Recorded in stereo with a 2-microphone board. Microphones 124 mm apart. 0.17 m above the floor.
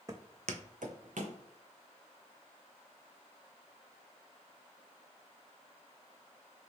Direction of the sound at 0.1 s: 25° right (ahead or behind).